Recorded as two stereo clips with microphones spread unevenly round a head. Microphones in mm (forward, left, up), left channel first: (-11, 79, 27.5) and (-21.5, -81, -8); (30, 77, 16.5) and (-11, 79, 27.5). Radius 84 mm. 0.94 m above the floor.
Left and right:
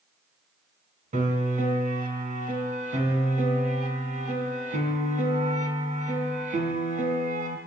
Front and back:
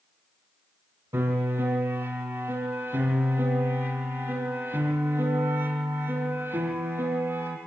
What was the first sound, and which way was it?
A piano, 140° right.